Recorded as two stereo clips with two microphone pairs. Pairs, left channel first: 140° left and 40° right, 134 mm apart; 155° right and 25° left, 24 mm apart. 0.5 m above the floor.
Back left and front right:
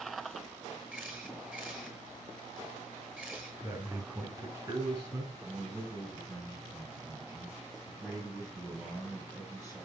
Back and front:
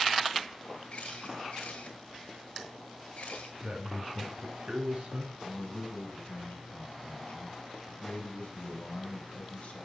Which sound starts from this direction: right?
A man speaking, at 5.4 s.